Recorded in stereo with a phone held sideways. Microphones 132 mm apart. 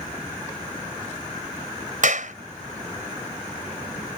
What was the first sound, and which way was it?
A clap, 70° right (ahead or behind).